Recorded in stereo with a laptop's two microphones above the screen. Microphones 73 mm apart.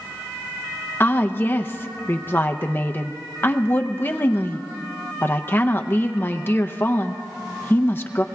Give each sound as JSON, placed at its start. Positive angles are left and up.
{"t": 1.0, "sound": "a woman speaking", "side_deg": 30, "distance_m": 0.6}